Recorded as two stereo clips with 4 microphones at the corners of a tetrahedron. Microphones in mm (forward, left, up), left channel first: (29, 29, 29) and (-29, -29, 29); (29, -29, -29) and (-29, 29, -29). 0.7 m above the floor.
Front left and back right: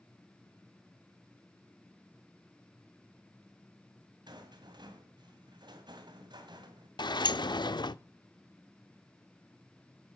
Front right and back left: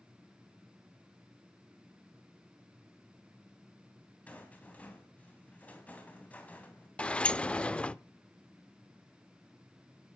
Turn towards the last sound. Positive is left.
turn(degrees=30)